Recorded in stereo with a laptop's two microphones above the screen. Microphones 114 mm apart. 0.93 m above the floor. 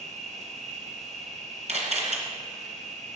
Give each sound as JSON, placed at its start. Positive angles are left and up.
{"t": 0.0, "sound": "an insect", "side_deg": -75, "distance_m": 1.5}
{"t": 1.7, "sound": "a camera shutter", "side_deg": -75, "distance_m": 2.5}